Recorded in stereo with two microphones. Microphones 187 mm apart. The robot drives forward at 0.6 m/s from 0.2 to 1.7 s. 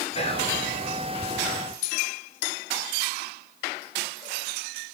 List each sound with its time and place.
0.1 s whispering: 35° left (ahead or behind), 1.4 m; by 0.6 s 30° left (ahead or behind), 1.5 m